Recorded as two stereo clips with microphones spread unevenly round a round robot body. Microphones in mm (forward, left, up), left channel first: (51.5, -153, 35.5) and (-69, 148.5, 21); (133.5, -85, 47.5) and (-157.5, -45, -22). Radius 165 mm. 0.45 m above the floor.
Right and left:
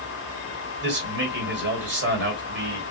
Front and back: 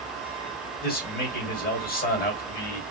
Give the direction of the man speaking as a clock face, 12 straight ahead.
10 o'clock.